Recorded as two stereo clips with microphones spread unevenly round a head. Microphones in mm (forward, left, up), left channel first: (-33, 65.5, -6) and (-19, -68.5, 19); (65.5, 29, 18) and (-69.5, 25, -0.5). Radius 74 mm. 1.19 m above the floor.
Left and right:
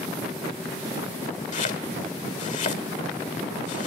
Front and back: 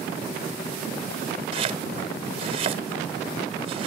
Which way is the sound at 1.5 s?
130° left.